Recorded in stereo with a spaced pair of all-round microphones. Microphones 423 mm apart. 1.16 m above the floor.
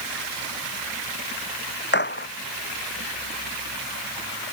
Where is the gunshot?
25° left (ahead or behind).